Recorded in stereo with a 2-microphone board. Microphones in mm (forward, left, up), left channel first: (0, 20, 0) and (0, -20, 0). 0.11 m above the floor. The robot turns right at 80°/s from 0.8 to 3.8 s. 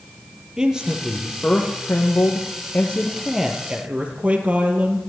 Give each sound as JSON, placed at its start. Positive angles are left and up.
{"t": 0.6, "sound": "a man speaking", "azimuth_deg": -20, "distance_m": 3.5}